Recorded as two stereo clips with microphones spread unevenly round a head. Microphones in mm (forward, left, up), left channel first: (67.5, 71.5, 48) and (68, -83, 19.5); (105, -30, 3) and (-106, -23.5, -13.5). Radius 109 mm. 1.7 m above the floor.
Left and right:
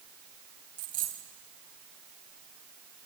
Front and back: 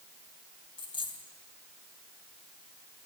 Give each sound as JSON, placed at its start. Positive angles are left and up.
{"t": 0.8, "sound": "a dropped coin", "azimuth_deg": -60, "distance_m": 2.5}